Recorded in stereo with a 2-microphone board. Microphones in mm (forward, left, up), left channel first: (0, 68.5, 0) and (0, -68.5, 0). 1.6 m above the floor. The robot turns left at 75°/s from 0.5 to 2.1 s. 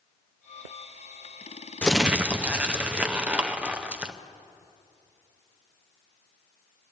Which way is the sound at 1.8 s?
10° left (ahead or behind).